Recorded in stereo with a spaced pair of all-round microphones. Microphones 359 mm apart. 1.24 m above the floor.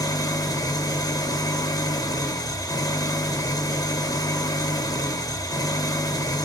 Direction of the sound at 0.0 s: 10° left (ahead or behind).